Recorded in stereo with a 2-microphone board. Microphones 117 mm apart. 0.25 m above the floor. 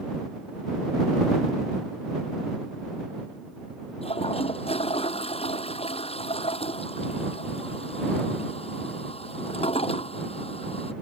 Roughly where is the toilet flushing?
Left.